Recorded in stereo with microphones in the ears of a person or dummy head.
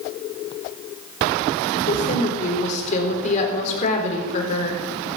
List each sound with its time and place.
1.8 s a woman speaking: 45° left (ahead or behind), 3.5 m